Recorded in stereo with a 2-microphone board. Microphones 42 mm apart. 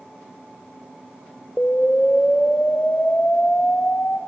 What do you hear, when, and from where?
1.6 s an explosion: 35° left (ahead or behind), 0.7 m